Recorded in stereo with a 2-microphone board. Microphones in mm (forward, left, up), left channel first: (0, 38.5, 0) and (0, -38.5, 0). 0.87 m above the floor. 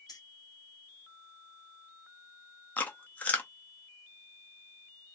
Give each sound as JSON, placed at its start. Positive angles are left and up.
{"t": 0.1, "sound": "keys jangling", "side_deg": 60, "distance_m": 1.0}
{"t": 2.8, "sound": "chewing", "side_deg": 20, "distance_m": 0.6}